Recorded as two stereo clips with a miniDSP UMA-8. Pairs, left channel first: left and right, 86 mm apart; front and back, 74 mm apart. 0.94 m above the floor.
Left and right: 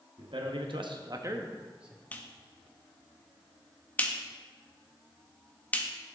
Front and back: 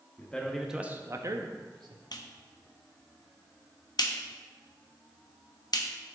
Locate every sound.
0.2 s a man speaking: 70° right, 1.2 m; by 2.0 s 170° right, 1.4 m
2.1 s a clap: 20° left, 0.8 m